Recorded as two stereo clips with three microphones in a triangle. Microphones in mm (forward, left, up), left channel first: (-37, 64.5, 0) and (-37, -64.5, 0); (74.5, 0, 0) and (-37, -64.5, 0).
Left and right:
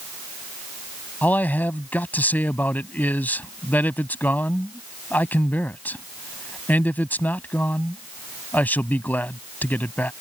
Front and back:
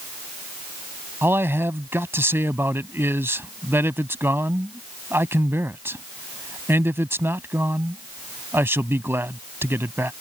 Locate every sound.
1.2 s a man speaking: 155° left